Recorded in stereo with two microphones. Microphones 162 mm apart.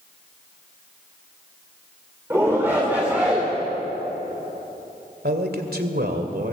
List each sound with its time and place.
2.3 s a shout: 15° right (ahead or behind), 3 m; by 3.5 s 5° right (ahead or behind), 2.5 m
5.2 s a man speaking: 80° right, 2.5 m